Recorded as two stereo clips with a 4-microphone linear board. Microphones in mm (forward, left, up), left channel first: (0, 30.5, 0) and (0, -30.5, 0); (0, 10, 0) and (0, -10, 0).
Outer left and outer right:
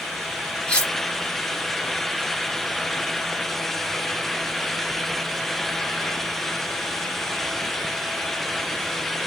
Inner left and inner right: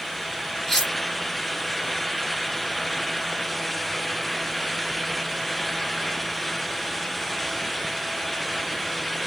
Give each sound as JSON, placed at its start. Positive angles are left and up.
{"t": 0.7, "sound": "cutlery clinking", "side_deg": 15, "distance_m": 2.5}